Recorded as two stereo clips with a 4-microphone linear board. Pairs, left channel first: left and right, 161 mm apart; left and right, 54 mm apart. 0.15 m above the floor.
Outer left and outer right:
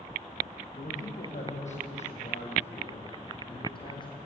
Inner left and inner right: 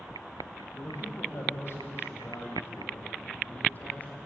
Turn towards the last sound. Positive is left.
turn(degrees=30)  # may be behind; listen again after turning